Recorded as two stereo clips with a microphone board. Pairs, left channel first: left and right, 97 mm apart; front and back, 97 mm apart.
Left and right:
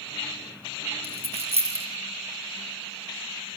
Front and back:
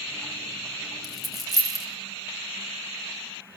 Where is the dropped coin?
90° right, 6.5 m.